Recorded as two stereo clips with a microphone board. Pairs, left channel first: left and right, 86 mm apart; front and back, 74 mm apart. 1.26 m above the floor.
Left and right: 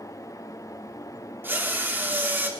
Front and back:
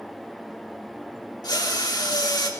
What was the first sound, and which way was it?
A drill, 25° right.